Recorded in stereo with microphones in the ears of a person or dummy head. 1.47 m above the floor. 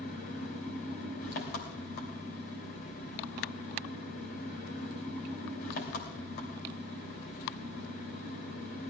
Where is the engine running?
60° left (ahead or behind), 2.5 m.